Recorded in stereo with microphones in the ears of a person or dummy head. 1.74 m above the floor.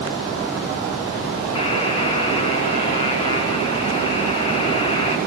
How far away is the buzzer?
About 3 m.